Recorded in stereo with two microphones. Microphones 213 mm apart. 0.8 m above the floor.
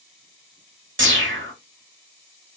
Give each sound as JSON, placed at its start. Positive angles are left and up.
{"t": 1.0, "sound": "a whoosh", "side_deg": -65, "distance_m": 0.9}